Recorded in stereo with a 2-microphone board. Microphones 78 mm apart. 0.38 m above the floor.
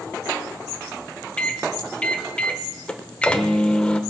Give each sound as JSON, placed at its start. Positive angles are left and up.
{"t": 1.4, "sound": "a microwave", "side_deg": 15, "distance_m": 0.7}